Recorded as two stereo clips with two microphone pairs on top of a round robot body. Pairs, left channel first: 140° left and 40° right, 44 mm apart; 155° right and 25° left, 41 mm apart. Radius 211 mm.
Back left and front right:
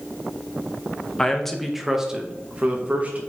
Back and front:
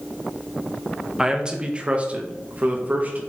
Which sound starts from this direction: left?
A man speaking, at 1.2 s.